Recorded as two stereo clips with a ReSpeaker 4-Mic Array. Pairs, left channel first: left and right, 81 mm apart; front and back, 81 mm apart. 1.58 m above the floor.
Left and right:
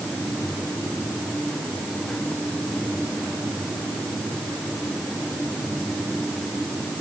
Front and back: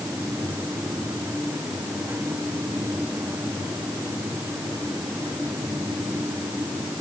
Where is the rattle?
I don't hear a rattle.